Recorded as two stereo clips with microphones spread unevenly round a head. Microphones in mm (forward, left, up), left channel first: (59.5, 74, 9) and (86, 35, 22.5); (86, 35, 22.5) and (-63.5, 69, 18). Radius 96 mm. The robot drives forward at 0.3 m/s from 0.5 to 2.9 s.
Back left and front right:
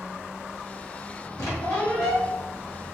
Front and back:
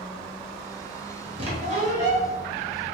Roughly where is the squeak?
Behind left.